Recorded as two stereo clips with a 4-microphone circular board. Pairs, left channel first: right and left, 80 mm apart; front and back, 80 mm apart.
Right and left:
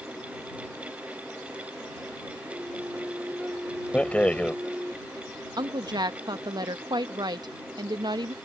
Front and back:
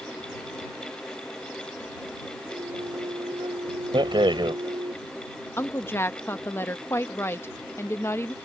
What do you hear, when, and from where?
2.5 s a flute: 170° left
3.9 s a rattle: 165° right
5.6 s a woman speaking: 60° left